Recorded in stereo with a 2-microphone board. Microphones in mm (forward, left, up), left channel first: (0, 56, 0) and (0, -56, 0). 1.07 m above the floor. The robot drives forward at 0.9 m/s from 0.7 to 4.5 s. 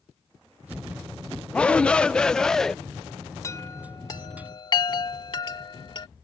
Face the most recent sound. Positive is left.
turn(degrees=45)  # may be behind; listen again after turning